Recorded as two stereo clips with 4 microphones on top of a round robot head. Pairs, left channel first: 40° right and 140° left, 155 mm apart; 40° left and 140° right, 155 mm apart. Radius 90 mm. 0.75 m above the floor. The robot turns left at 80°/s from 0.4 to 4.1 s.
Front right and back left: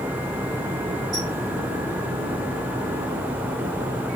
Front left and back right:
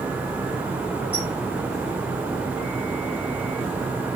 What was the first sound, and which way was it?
A squeak, 140° left.